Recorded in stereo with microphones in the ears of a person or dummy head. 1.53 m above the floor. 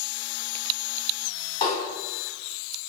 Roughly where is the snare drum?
Left.